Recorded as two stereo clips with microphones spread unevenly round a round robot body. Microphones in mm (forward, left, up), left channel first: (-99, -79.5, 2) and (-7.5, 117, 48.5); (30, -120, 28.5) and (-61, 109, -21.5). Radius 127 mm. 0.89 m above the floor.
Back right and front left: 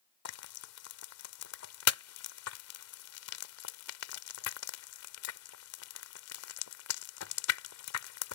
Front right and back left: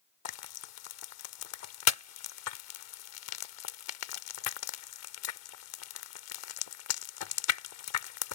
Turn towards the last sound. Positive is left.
turn(degrees=-80)